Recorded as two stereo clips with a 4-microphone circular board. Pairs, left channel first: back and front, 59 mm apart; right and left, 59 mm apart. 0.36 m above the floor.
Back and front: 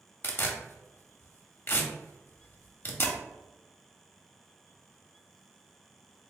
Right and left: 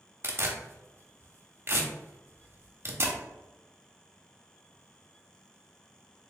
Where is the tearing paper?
135° left, 0.8 m.